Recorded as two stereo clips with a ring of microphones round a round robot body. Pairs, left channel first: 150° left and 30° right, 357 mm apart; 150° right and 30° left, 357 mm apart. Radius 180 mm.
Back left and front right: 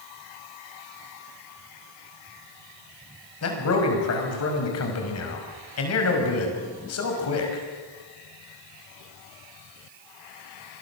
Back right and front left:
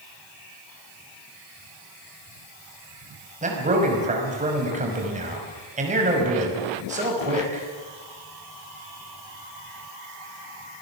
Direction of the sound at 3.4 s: 100° left.